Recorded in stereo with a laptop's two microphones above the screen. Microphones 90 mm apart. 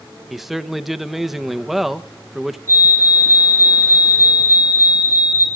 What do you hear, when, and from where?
0.3 s a man speaking: 5° right (ahead or behind), 1.1 m
2.7 s a fire alarm: 30° left (ahead or behind), 6 m